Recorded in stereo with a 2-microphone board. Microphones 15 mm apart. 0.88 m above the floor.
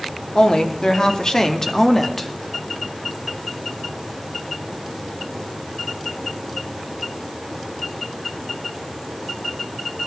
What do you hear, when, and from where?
0.3 s a woman speaking: 65° left (ahead or behind), 2 m; by 2.3 s 20° left (ahead or behind), 1.6 m